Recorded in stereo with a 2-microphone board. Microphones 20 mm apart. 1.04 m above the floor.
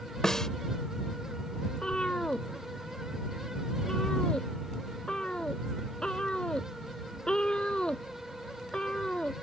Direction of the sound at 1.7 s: 45° left (ahead or behind).